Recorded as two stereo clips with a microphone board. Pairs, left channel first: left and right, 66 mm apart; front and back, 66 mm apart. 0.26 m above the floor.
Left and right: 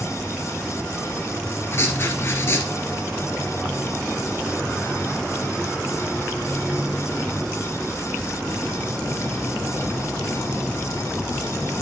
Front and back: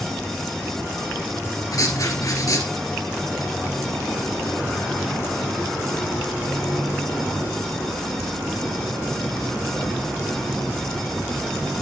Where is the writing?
35° left, 2.0 m.